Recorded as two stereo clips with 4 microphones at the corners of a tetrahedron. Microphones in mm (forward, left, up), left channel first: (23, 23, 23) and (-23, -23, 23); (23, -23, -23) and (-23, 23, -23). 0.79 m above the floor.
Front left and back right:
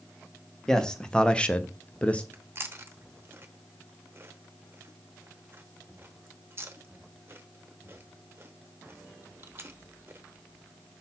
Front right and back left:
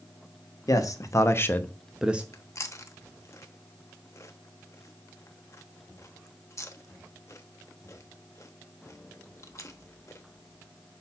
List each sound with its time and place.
0.7 s a man speaking: 35° right, 1.2 m; by 2.2 s 100° left, 0.7 m
2.3 s chewing: 85° right, 0.9 m